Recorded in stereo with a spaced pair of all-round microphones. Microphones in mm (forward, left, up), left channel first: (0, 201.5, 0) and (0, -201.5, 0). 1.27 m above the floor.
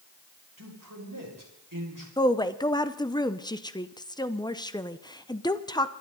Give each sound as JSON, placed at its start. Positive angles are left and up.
{"t": 0.6, "sound": "a man speaking", "side_deg": -50, "distance_m": 6.5}
{"t": 2.2, "sound": "a woman speaking", "side_deg": 10, "distance_m": 0.8}